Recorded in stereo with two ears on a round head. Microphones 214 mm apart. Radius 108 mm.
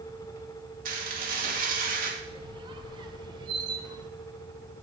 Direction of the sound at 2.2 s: 20° right (ahead or behind).